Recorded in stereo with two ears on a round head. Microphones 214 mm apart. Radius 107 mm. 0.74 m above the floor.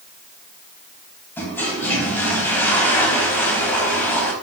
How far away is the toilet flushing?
About 4 m.